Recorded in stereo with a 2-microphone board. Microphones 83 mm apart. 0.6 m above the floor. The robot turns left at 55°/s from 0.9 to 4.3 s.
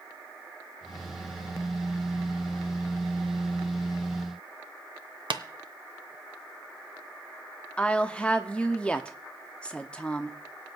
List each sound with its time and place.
5.3 s tapping: 70° right (ahead or behind), 0.8 m
7.8 s a woman speaking: 15° left (ahead or behind), 0.7 m